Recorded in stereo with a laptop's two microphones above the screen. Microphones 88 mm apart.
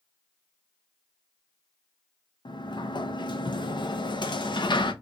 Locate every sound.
2.5 s a sliding door: 60° left (ahead or behind), 0.6 m